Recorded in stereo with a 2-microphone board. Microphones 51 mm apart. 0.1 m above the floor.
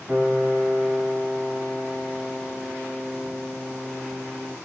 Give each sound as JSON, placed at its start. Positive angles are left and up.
{"t": 0.1, "sound": "a piano", "side_deg": -10, "distance_m": 5.5}